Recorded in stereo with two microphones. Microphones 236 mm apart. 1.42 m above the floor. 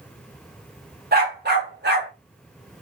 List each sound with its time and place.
1.1 s a dog barking: 40° right (ahead or behind), 1.3 m